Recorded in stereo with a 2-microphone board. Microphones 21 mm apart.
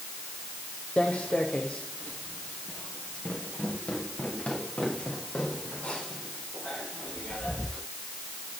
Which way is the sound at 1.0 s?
80° left.